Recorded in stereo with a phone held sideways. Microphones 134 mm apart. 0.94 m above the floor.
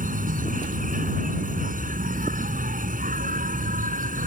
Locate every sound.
0.0 s an insect: 80° right